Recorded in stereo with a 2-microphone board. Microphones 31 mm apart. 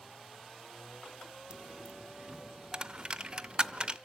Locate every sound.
1.5 s a dropped coin: 35° right (ahead or behind), 0.5 m